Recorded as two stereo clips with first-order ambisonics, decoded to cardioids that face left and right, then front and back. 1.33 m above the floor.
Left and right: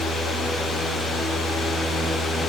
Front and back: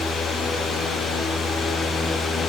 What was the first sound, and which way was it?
Only background noise.